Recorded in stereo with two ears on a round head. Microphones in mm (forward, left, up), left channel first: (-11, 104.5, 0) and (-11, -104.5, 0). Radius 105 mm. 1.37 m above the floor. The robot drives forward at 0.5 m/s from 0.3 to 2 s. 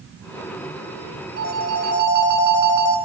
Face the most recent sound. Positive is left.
turn(degrees=-45)  # may be behind; listen again after turning